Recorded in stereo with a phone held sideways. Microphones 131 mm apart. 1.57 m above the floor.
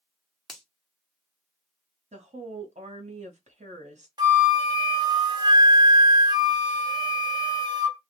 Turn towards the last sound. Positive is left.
turn(degrees=-35)  # may be behind; listen again after turning